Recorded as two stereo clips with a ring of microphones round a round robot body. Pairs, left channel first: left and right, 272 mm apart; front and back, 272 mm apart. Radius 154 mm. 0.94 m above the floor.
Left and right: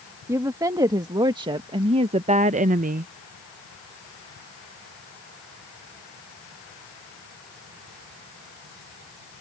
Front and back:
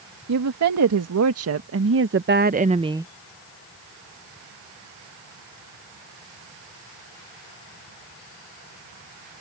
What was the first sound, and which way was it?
A woman speaking, 170° right.